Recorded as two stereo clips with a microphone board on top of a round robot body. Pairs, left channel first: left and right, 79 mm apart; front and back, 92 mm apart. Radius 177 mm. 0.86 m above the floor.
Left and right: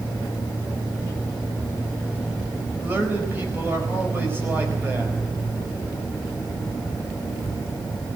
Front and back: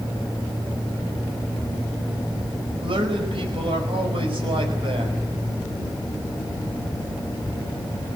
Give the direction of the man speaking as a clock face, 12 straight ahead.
5 o'clock.